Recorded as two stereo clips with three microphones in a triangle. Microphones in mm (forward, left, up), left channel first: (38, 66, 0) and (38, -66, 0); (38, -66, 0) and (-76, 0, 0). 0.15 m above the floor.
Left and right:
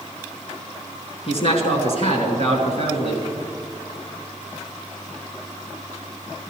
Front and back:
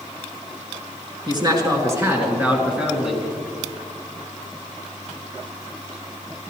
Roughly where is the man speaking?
Left.